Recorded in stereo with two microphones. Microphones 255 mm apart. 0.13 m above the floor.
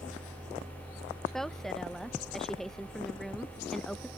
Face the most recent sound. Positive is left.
turn(degrees=0)  # may be behind; listen again after turning